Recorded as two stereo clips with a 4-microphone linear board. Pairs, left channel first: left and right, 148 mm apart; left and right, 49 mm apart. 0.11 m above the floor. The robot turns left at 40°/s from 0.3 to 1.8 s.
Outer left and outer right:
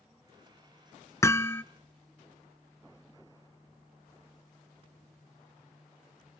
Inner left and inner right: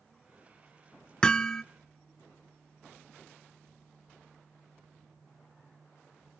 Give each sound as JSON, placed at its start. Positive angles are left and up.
{"t": 1.2, "sound": "hammering", "side_deg": 20, "distance_m": 0.6}